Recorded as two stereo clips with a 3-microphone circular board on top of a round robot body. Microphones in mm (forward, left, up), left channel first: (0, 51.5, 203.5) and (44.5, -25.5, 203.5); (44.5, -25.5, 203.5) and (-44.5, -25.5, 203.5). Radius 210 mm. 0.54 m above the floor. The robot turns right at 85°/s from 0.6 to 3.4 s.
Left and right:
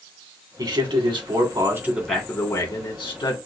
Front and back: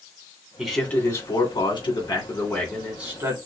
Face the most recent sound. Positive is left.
turn(degrees=140)